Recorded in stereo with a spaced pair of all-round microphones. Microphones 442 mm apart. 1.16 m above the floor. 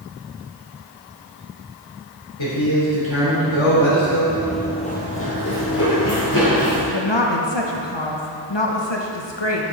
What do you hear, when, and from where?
2.4 s a man speaking: 85° left, 3.5 m
4.3 s running footsteps: 15° right (ahead or behind), 1.3 m; by 6.8 s 50° left (ahead or behind), 3.5 m
6.9 s a woman speaking: 70° left (ahead or behind), 1.1 m